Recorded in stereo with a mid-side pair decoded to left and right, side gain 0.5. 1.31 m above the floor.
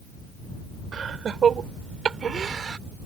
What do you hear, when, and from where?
0.9 s laughter: 45° right; by 2.8 s 40° right